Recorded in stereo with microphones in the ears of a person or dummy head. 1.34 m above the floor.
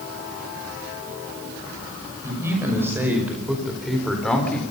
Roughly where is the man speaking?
Centre.